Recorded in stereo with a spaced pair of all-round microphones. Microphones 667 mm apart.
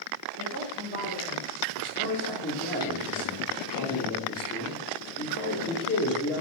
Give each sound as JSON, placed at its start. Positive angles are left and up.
{"t": 0.4, "sound": "a woman speaking", "side_deg": 30, "distance_m": 4.5}
{"t": 1.8, "sound": "a man speaking", "side_deg": 15, "distance_m": 4.0}